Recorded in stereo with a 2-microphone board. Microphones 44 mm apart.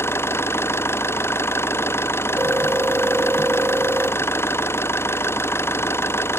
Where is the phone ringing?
45° right (ahead or behind).